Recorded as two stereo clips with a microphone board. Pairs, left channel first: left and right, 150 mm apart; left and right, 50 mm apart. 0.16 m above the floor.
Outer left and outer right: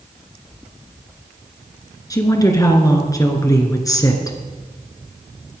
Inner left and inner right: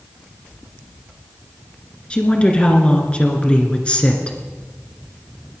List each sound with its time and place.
2.1 s a woman speaking: 25° left (ahead or behind), 2.5 m